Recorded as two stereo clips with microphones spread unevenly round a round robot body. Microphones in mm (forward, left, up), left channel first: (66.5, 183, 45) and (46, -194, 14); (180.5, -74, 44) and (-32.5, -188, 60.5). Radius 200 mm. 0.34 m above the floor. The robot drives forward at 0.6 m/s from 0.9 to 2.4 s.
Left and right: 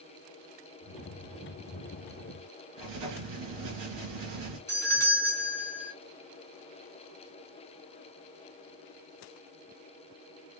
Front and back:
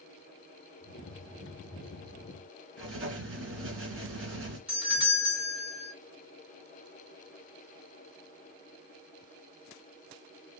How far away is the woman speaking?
No woman speaking in this recording.